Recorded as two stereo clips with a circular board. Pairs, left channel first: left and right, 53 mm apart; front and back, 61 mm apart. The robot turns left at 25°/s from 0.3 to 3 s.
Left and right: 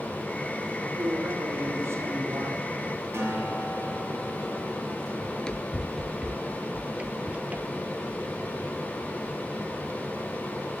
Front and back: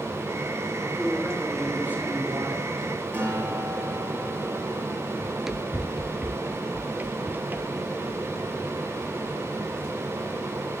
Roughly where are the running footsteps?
Left.